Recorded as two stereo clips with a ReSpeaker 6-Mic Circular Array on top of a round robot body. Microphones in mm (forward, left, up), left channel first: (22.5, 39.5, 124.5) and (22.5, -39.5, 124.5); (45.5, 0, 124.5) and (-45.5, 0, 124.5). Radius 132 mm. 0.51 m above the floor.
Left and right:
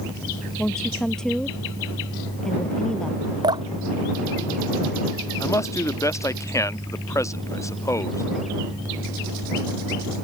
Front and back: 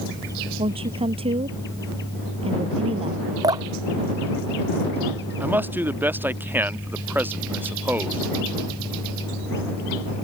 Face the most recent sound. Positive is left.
turn(degrees=120)